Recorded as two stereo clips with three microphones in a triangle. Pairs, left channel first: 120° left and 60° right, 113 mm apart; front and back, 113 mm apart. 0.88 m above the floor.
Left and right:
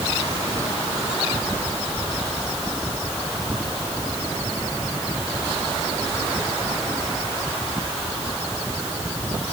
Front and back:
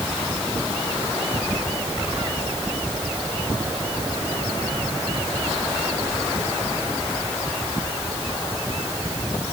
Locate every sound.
Only background noise.